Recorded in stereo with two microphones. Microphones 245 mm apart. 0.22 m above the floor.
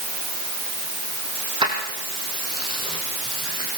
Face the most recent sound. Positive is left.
turn(degrees=-20)  # may be behind; listen again after turning